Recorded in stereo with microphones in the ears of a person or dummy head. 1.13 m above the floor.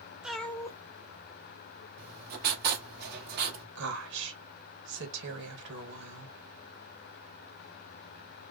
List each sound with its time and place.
0.2 s a cat meowing: 5° right (ahead or behind), 0.5 m; by 1.9 s 40° left (ahead or behind), 1.3 m
2.0 s writing: 60° right (ahead or behind), 1.5 m
3.8 s a woman speaking: 65° right (ahead or behind), 1.6 m